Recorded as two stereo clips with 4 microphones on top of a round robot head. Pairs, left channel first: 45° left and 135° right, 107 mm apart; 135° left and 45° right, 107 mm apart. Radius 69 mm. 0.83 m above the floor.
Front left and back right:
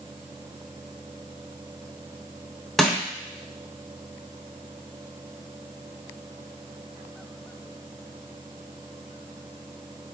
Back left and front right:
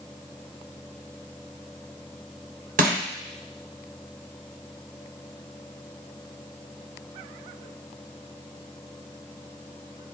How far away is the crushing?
About 0.9 m.